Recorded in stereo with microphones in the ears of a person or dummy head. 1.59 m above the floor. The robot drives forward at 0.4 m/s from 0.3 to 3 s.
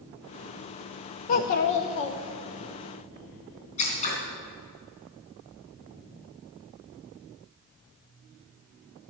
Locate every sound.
1.3 s a child speaking: 30° left (ahead or behind), 0.6 m; by 2.7 s 25° left (ahead or behind), 0.8 m
3.8 s scissors: 35° left (ahead or behind), 3 m